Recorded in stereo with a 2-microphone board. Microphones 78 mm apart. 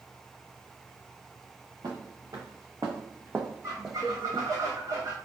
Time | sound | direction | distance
1.8 | footsteps | 55° right (ahead or behind) | 1.3 m
3.6 | a squeak | 40° right (ahead or behind) | 1.4 m